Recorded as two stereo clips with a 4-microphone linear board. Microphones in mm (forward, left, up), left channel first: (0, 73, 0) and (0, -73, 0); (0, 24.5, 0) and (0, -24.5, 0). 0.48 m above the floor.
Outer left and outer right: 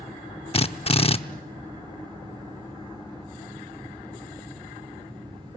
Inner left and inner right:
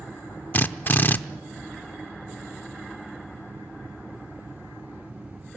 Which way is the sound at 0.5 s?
40° left (ahead or behind).